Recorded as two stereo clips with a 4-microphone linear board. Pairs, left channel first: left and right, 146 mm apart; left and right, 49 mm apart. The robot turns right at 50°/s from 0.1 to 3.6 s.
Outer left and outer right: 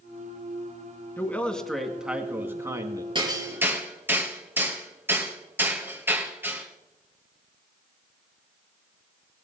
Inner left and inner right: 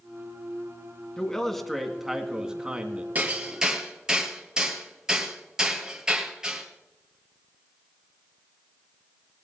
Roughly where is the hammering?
Right.